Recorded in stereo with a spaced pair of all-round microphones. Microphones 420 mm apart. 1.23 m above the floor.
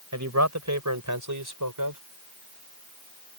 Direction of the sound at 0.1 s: 40° right (ahead or behind).